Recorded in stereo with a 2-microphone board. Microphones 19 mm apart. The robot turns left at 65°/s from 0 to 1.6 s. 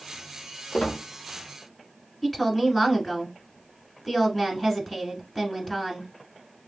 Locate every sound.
0.7 s a squeak: 75° left (ahead or behind), 1.2 m; by 1.0 s 70° left (ahead or behind), 1.2 m
2.2 s a woman speaking: 15° left (ahead or behind), 1.3 m